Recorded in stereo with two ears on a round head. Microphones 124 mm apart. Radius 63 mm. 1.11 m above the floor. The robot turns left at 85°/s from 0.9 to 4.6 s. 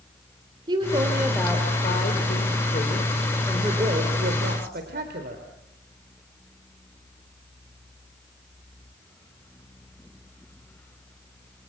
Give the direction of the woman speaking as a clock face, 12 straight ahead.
5 o'clock.